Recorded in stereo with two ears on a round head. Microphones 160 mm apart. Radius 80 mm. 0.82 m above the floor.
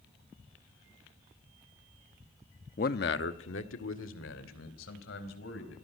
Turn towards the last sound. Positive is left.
turn(degrees=80)